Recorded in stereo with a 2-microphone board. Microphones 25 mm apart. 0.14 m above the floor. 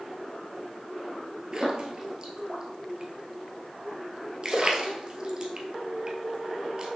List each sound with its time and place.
1.5 s a splash: 35° right (ahead or behind), 1.3 m